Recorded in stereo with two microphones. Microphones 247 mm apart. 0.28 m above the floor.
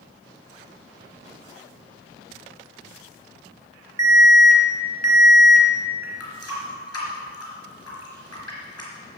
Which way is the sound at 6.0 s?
75° left (ahead or behind).